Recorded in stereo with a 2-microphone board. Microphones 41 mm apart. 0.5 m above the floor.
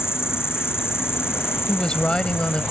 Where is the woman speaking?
20° left (ahead or behind).